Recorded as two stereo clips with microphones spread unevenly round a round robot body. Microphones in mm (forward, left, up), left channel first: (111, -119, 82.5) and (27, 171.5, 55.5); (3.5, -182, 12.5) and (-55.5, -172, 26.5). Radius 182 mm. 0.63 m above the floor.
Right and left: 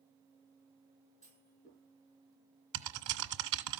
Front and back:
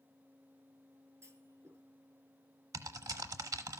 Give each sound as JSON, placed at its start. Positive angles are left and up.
{"t": 1.2, "sound": "a clunk", "azimuth_deg": -145, "distance_m": 6.0}
{"t": 2.7, "sound": "typing on a keyboard", "azimuth_deg": 160, "distance_m": 0.7}